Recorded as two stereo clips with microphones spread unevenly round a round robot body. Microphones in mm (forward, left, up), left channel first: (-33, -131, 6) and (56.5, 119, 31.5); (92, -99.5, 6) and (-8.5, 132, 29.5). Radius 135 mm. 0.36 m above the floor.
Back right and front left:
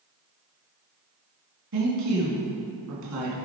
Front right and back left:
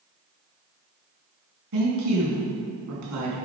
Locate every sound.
1.7 s a woman speaking: 100° left, 3 m